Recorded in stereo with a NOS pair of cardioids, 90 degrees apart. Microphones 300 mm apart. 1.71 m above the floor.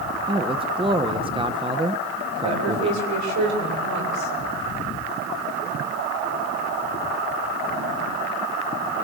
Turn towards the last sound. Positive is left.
turn(degrees=-70)